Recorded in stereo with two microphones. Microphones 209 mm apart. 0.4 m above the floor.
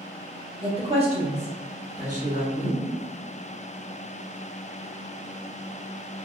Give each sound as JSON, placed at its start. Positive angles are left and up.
{"t": 0.6, "sound": "a woman speaking", "side_deg": -25, "distance_m": 1.1}